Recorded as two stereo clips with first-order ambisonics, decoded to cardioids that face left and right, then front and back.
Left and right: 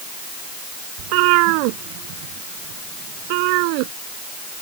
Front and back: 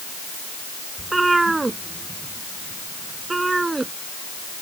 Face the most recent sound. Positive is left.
turn(degrees=-100)